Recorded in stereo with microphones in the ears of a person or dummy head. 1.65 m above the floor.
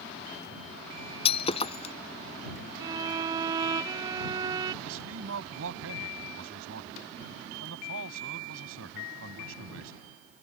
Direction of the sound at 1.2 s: 30° left (ahead or behind).